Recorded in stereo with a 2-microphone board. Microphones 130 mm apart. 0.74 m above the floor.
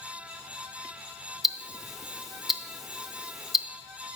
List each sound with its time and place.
1.4 s ticking: centre (ahead or behind), 0.7 m